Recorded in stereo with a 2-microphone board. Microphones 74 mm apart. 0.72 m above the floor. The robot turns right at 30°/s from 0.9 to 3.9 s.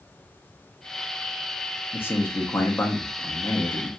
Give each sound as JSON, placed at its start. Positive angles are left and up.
{"t": 1.9, "sound": "a man speaking", "side_deg": 25, "distance_m": 0.7}